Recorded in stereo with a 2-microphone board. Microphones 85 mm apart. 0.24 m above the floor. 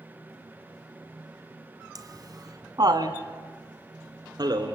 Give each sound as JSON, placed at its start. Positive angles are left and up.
{"t": 1.9, "sound": "laughter", "side_deg": -50, "distance_m": 1.7}